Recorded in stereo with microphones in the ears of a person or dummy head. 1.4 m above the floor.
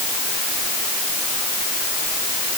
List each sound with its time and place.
Only background noise.